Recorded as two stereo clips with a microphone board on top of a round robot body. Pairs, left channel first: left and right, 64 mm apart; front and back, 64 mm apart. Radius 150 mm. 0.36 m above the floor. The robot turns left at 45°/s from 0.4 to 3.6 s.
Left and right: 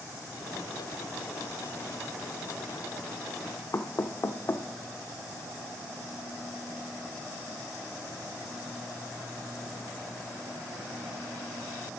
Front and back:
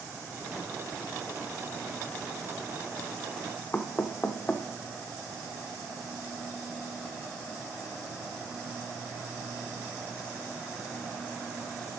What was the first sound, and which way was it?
Knocking, 60° left.